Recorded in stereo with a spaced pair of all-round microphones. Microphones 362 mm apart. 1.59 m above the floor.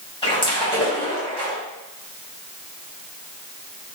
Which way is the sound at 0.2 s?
15° left (ahead or behind).